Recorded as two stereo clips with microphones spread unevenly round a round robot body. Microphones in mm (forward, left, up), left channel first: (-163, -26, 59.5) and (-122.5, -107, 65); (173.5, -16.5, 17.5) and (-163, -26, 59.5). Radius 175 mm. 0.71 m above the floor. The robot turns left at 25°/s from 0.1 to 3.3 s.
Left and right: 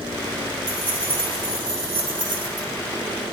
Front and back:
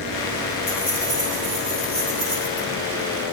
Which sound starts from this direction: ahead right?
Keys jangling, at 0.7 s.